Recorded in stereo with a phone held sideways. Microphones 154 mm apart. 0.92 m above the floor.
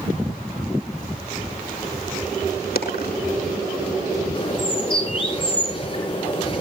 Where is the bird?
30° left (ahead or behind), 8 m.